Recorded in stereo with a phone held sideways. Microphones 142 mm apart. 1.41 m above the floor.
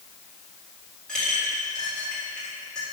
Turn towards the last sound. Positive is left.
turn(degrees=5)  # may be behind; listen again after turning